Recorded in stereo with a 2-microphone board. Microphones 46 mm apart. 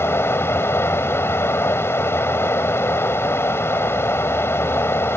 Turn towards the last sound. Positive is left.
turn(degrees=65)  # may be behind; listen again after turning